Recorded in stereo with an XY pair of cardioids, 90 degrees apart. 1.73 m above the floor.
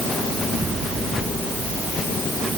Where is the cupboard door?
No cupboard door in this recording.